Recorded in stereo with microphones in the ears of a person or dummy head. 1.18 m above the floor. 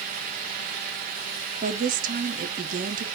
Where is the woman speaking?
40° right (ahead or behind), 0.8 m.